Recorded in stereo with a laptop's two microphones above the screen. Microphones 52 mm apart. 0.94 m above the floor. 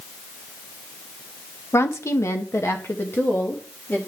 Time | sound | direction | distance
1.7 | a woman speaking | 55° left (ahead or behind) | 0.7 m